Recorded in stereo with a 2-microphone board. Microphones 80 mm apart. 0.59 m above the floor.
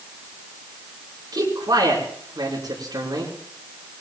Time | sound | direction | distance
1.3 | a man speaking | 60° right (ahead or behind) | 6 m